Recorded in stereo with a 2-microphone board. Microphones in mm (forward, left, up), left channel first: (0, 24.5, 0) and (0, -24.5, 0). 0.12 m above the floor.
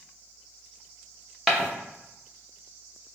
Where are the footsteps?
Centre (ahead or behind), 1.0 m.